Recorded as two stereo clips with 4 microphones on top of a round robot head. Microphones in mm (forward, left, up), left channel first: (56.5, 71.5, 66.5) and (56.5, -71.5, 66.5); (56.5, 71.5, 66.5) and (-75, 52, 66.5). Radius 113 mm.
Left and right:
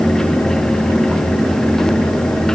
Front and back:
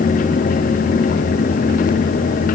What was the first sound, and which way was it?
Only background noise.